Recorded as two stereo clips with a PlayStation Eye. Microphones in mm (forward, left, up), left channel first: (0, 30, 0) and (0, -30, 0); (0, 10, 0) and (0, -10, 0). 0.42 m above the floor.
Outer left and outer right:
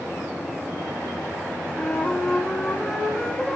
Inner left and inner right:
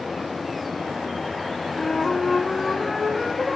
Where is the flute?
15° left (ahead or behind), 3 m.